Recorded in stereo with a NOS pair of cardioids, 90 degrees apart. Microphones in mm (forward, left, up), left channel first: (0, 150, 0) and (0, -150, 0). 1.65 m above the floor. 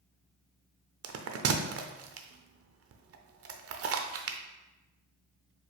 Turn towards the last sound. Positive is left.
turn(degrees=-50)